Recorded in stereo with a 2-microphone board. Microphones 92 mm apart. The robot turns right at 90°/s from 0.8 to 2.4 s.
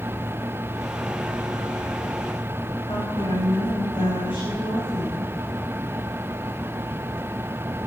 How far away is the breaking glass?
No breaking glass in this recording.